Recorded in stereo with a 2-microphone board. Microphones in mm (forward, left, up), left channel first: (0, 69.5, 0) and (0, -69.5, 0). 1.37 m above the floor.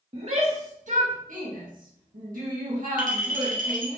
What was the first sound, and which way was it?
A shout, 45° right (ahead or behind).